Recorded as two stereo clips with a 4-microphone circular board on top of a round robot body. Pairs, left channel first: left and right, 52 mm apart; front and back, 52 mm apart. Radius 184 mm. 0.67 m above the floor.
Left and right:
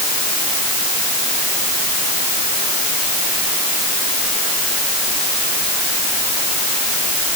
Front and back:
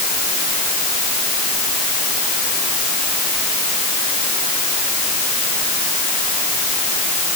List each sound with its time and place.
Only background noise.